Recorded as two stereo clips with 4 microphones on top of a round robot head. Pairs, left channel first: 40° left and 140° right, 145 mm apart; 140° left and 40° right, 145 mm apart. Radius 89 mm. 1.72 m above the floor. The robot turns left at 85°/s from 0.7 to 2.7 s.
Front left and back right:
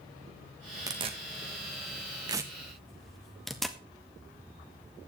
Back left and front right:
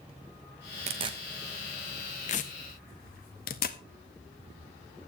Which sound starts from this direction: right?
Tearing paper, at 0.9 s.